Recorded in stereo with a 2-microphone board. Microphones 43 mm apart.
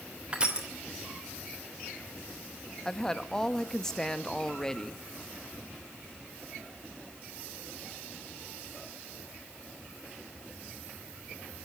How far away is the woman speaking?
About 0.9 m.